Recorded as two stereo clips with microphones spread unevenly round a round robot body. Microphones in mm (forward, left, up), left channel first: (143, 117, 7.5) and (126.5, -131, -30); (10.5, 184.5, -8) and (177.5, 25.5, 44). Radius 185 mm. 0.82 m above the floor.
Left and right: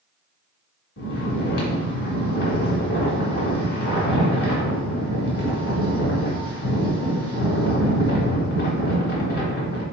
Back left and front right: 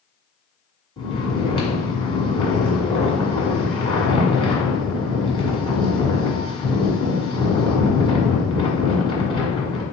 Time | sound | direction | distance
1.0 | snoring | 60° left | 1.7 m